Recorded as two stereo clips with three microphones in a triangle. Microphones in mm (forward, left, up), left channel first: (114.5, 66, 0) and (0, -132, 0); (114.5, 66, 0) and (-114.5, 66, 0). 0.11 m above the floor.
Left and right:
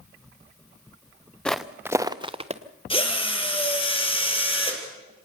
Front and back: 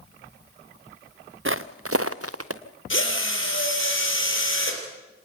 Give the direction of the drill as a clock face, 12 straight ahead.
12 o'clock.